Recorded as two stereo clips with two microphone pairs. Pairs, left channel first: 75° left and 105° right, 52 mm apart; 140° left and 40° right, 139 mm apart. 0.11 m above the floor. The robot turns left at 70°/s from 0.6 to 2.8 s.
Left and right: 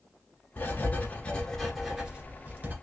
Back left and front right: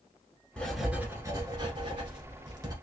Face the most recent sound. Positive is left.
turn(degrees=-90)